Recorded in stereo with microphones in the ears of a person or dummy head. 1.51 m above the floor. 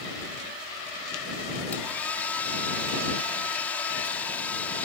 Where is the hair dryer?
10° left (ahead or behind).